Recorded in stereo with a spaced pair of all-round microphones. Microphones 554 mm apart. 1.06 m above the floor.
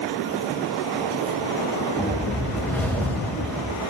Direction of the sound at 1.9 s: 5° left (ahead or behind).